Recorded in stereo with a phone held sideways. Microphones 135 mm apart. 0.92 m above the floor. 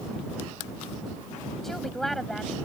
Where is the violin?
I don't hear a violin.